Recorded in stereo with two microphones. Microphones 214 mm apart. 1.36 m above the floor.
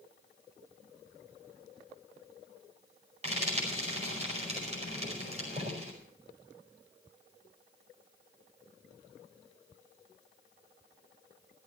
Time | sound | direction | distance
3.2 | frying | 30° right (ahead or behind) | 5 m